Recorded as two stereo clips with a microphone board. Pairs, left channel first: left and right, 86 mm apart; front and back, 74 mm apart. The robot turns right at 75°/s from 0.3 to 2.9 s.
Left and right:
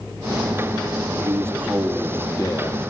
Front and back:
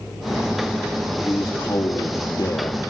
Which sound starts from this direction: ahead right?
A man speaking, at 1.2 s.